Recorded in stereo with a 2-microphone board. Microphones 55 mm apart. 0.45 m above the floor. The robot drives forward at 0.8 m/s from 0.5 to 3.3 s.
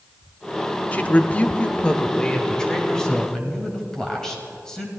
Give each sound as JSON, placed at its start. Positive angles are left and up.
{"t": 0.9, "sound": "a woman speaking", "side_deg": 30, "distance_m": 0.8}